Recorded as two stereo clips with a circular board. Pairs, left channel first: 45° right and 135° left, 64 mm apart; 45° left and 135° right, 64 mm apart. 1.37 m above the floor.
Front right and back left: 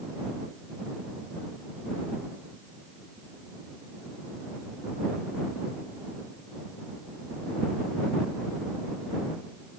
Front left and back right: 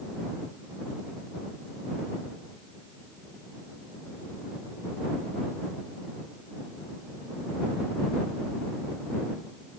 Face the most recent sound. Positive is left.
No sound to turn to.